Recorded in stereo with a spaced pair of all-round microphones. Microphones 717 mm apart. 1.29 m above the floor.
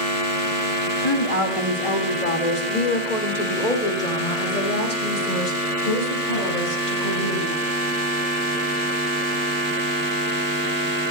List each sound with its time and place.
1.0 s a woman speaking: 35° left (ahead or behind), 1.7 m; by 7.6 s 90° left, 6 m